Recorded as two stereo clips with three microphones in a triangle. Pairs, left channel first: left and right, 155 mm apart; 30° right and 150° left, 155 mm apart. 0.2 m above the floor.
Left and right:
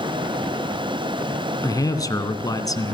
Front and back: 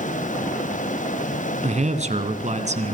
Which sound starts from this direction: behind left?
A man speaking, at 1.6 s.